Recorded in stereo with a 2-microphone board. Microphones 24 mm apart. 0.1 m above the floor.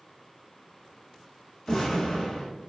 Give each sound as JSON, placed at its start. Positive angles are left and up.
{"t": 1.7, "sound": "an explosion", "side_deg": 35, "distance_m": 1.4}